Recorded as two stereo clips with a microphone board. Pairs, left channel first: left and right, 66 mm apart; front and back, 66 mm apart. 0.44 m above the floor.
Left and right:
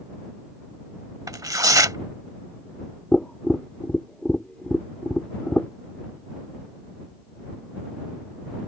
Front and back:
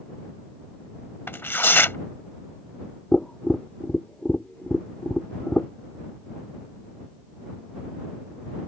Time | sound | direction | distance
1.3 | tearing paper | 60° right | ?
3.1 | tapping | 45° left | ?